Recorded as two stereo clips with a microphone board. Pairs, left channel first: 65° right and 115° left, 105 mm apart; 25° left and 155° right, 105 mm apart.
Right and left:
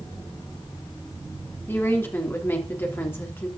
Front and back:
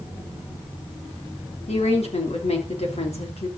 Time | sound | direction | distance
1.7 | a woman speaking | straight ahead | 3.5 m